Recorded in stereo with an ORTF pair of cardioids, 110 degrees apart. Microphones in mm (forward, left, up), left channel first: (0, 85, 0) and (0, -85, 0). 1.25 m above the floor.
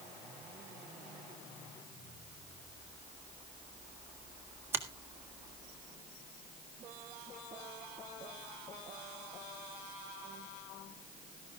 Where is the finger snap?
15° right, 1.6 m.